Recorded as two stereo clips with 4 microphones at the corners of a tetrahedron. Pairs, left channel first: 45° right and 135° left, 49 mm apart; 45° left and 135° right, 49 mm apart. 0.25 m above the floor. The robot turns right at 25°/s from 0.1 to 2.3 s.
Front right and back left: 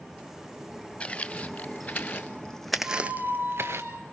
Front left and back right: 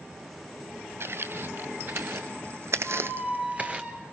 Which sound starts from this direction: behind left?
A squeak, at 2.8 s.